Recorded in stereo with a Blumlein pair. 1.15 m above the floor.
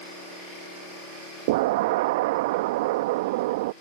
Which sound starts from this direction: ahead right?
An explosion, at 1.5 s.